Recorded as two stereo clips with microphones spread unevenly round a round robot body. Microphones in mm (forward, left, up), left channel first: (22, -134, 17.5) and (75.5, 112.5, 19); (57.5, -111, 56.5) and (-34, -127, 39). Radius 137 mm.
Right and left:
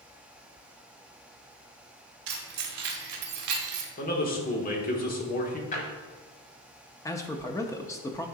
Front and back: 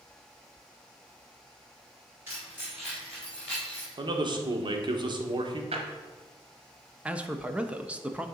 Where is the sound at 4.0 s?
160° right, 1.2 m.